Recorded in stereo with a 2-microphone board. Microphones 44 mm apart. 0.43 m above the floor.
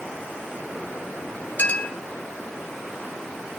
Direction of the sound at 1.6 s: 45° left (ahead or behind).